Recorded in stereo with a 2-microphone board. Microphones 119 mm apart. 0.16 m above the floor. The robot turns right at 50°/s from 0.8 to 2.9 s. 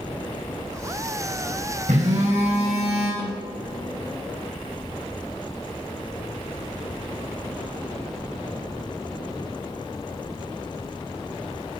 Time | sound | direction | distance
1.9 | a phone buzzing | 100° right | 5 m
3.2 | a snare drum | 25° left (ahead or behind) | 6.5 m